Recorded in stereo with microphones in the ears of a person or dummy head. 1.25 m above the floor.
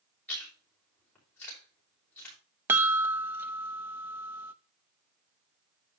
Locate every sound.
0.3 s chewing: 5° left (ahead or behind), 5 m
2.7 s a chime: 10° right (ahead or behind), 0.6 m